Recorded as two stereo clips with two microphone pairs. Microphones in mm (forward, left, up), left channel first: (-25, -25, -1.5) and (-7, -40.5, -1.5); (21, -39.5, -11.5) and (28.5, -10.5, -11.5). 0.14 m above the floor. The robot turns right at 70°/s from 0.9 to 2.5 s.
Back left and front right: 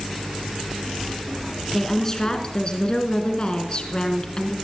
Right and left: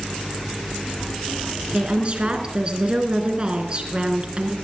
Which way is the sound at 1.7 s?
55° left.